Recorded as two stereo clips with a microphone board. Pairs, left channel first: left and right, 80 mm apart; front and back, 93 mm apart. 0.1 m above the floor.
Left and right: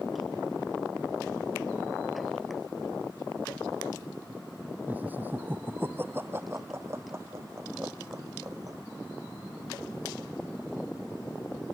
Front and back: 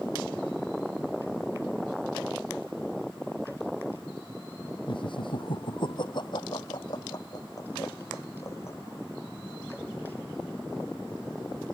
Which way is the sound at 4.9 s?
20° right.